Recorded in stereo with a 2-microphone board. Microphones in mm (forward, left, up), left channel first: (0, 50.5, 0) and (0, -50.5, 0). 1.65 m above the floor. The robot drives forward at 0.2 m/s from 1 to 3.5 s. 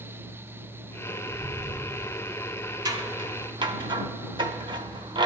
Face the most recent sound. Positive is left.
turn(degrees=-45)  # may be behind; listen again after turning